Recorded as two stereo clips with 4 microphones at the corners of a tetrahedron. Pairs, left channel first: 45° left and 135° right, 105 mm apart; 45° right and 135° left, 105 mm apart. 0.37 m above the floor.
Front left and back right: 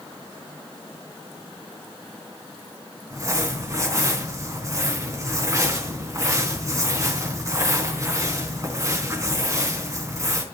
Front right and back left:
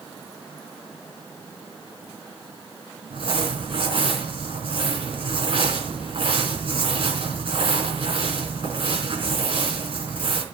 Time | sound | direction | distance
3.1 | crumpling | 165° left | 4 m